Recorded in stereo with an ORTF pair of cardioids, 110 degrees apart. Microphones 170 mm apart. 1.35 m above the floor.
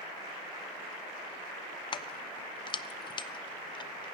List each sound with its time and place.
1.9 s keys jangling: 30° left, 0.6 m